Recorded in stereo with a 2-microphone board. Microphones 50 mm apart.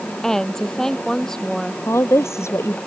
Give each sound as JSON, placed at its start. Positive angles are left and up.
{"t": 0.2, "sound": "a woman speaking", "side_deg": 5}
{"t": 1.9, "sound": "a woman speaking", "side_deg": 65}